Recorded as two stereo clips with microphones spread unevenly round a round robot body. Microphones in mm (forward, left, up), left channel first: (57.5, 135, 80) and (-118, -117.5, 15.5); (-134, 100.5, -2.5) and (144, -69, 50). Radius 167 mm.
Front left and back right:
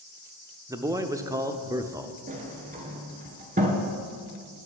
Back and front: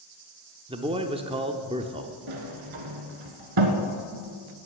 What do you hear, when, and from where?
0.7 s a man speaking: 105° right, 0.8 m
2.3 s a sliding door: 55° right, 1.4 m